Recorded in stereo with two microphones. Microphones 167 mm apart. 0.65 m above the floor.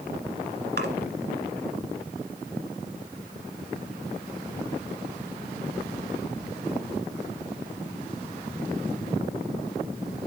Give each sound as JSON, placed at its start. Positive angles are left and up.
{"t": 0.8, "sound": "a splash", "side_deg": -75, "distance_m": 1.9}